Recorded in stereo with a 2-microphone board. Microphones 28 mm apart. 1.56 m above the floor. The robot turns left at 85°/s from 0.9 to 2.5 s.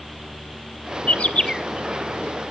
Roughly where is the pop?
I don't hear a pop.